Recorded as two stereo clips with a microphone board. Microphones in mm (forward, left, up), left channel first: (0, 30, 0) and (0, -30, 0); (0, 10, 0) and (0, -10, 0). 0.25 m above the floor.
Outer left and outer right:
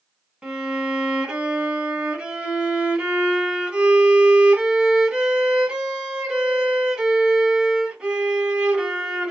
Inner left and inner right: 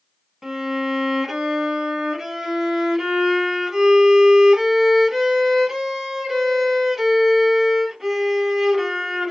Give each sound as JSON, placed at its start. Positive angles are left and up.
{"t": 0.4, "sound": "a violin", "side_deg": -15, "distance_m": 0.9}